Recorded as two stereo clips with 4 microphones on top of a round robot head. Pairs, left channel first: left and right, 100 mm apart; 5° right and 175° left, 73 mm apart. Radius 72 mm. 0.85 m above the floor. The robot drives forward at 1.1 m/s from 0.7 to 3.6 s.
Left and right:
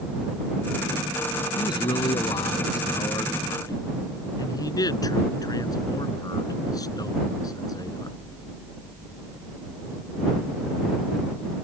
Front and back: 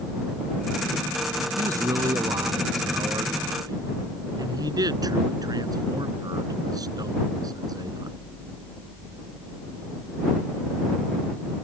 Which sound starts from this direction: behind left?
A man speaking, at 1.6 s.